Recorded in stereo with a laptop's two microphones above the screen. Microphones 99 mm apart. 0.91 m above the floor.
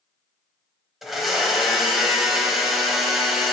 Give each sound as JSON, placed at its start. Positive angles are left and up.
{"t": 1.0, "sound": "a blender", "side_deg": 0, "distance_m": 1.0}